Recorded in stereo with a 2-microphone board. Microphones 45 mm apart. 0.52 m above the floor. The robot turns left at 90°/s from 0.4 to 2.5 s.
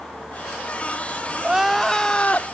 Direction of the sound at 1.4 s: 150° right.